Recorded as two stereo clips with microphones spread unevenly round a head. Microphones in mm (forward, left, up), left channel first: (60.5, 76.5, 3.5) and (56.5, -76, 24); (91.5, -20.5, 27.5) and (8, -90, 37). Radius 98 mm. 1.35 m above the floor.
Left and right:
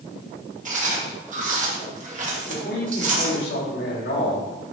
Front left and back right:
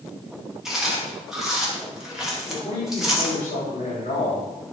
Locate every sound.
0.7 s chewing: 55° right, 2.5 m
2.5 s a man speaking: 90° left, 3 m